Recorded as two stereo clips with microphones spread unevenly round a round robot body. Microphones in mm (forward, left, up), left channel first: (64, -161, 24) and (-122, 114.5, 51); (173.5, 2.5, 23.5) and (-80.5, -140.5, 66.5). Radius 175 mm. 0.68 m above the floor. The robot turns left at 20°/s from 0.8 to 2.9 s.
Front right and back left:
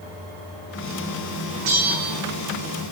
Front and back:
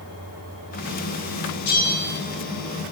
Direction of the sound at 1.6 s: 75° left.